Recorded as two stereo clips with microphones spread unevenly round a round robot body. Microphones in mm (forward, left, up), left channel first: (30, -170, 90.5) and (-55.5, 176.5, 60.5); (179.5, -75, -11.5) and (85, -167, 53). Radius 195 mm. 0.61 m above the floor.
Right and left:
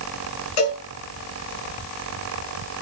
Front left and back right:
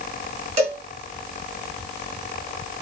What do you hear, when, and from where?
0.6 s a cowbell: 100° right, 5.5 m